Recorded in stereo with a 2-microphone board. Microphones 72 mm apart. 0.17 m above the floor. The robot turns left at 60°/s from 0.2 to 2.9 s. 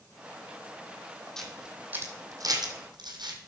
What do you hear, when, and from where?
1.4 s a camera shutter: 5° left (ahead or behind), 1.9 m; by 3.5 s 80° right, 1.9 m